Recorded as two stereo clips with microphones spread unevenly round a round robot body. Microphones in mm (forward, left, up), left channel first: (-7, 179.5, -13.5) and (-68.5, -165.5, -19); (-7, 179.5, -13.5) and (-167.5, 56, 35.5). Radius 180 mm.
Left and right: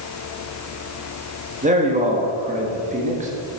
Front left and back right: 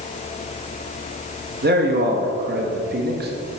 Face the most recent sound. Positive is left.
turn(degrees=-150)